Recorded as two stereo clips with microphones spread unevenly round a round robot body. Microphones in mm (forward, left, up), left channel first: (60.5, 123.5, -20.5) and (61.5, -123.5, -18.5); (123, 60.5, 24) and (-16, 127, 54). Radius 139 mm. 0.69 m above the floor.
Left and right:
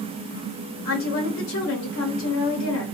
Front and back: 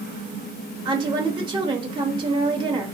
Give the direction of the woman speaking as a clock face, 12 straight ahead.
9 o'clock.